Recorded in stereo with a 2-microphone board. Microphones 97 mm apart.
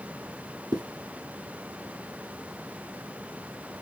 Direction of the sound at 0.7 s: 45° right (ahead or behind).